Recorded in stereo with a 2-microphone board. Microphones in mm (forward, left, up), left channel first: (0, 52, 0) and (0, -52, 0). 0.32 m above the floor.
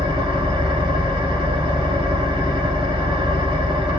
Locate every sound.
0.0 s an engine running: 55° right (ahead or behind), 1.0 m